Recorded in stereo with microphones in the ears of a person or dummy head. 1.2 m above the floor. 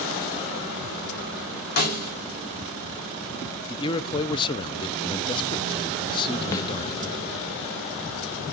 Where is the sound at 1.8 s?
45° left (ahead or behind), 2.5 m.